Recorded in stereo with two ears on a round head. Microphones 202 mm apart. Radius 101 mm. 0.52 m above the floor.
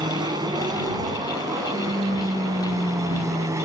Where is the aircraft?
20° right (ahead or behind); by 3.7 s 15° right (ahead or behind).